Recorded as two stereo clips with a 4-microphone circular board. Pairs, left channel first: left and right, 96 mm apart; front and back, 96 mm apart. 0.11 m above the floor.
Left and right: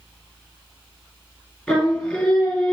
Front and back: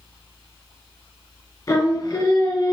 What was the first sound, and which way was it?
Singing, 15° left.